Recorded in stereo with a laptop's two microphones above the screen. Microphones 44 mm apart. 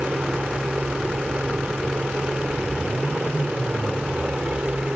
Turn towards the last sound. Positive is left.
turn(degrees=-30)  # may be behind; listen again after turning